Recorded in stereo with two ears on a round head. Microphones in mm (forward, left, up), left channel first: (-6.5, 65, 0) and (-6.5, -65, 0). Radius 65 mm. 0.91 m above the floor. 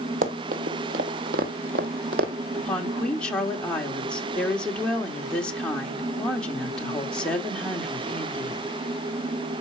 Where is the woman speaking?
5° left (ahead or behind), 2.5 m.